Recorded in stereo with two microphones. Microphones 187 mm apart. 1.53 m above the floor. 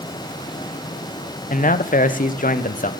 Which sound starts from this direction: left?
A man speaking, at 1.5 s.